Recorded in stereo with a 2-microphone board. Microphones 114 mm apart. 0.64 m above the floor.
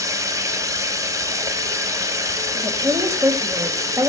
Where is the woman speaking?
30° right (ahead or behind), 3 m.